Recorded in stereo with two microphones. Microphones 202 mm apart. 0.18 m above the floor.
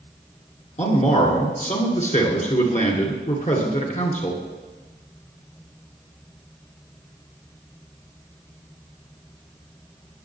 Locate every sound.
0.8 s a man speaking: 40° left (ahead or behind), 2 m